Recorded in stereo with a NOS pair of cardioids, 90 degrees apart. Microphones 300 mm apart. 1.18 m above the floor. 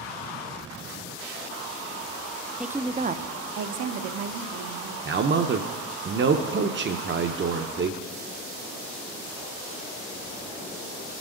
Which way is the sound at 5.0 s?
35° right.